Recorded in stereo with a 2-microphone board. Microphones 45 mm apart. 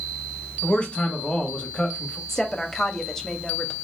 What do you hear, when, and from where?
0.6 s a man speaking: 25° left (ahead or behind), 1.1 m
2.3 s a woman speaking: 10° left (ahead or behind), 0.8 m